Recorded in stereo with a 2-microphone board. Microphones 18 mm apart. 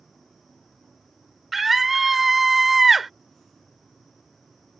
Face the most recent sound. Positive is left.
turn(degrees=-10)  # may be behind; listen again after turning